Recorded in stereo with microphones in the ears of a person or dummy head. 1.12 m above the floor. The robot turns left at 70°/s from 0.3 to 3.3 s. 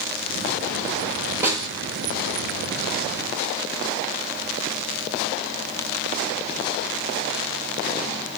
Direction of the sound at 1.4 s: 15° right (ahead or behind).